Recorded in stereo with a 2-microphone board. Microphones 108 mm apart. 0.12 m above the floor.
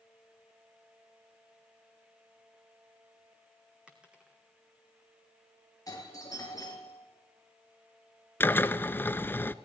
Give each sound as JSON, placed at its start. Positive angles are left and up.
{"t": 3.9, "sound": "a dropped coin", "side_deg": -10, "distance_m": 2.0}
{"t": 5.9, "sound": "a doorbell", "side_deg": 35, "distance_m": 3.5}
{"t": 8.4, "sound": "a drill", "side_deg": 20, "distance_m": 0.6}